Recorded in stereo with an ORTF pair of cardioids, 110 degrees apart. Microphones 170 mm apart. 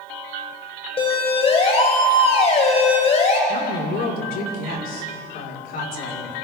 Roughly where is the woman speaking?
Ahead left.